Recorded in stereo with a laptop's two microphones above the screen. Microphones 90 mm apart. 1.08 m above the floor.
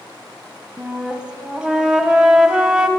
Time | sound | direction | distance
0.8 | a flute | 10° right (ahead or behind) | 1.0 m